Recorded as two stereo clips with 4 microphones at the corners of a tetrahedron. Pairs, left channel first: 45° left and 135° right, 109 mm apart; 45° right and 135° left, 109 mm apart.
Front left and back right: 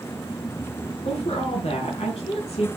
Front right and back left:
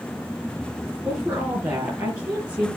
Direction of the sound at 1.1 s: 70° left.